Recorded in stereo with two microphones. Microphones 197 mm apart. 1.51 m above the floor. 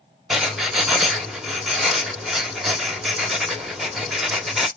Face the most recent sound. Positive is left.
turn(degrees=0)  # may be behind; listen again after turning